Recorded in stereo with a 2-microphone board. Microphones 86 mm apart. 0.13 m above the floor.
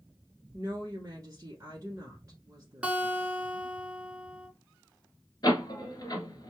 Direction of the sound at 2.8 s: 15° right (ahead or behind).